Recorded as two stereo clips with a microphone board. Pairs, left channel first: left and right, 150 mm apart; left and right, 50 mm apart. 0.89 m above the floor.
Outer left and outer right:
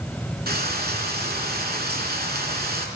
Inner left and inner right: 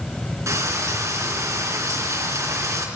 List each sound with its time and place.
0.5 s frying: 80° right, 3.5 m